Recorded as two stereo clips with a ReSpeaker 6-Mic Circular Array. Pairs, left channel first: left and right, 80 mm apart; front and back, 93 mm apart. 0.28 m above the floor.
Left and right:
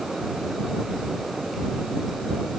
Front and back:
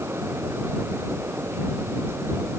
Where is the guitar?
No guitar in this recording.